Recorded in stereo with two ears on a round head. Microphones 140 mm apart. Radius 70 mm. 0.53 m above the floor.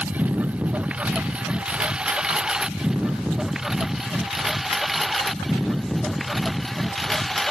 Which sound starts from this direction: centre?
A lawn mower, at 0.0 s.